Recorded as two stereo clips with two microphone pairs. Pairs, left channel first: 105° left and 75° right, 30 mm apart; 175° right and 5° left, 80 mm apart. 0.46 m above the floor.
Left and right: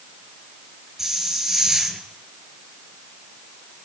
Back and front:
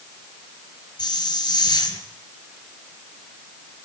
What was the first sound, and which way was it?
A hiss, 155° right.